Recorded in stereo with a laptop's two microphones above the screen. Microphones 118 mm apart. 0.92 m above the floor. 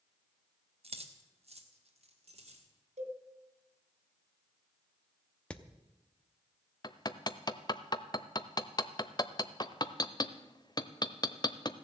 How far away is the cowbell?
About 3 m.